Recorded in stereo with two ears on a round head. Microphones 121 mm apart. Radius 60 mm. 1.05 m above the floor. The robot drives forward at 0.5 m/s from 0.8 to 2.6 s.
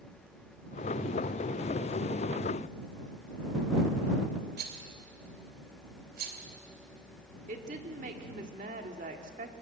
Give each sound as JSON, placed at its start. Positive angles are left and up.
{"t": 4.6, "sound": "a rattle", "side_deg": -75, "distance_m": 2.5}
{"t": 7.5, "sound": "a woman speaking", "side_deg": -60, "distance_m": 2.0}